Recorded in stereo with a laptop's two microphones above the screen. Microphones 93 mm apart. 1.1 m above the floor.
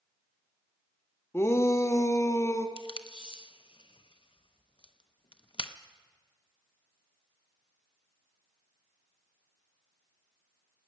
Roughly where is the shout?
Left.